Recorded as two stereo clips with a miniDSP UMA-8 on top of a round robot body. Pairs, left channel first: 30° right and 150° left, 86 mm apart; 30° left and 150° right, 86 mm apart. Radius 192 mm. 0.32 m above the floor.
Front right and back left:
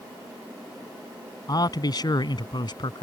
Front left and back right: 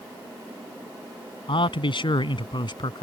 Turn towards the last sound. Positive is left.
turn(degrees=0)